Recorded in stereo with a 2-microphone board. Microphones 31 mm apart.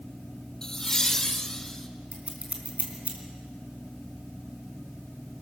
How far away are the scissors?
About 3.5 m.